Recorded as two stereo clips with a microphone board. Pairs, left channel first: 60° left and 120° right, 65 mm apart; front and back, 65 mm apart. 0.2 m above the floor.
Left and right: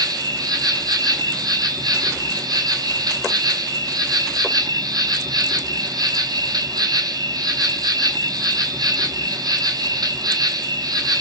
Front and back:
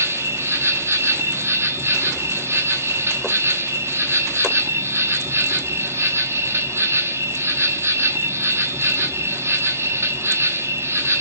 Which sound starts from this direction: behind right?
An insect, at 0.0 s.